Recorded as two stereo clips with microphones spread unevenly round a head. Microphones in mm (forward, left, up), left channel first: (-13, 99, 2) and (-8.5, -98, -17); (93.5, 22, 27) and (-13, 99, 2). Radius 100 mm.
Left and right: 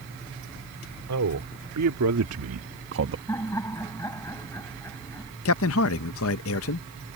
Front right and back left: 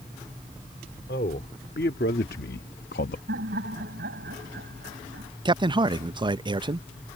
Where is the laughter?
165° left.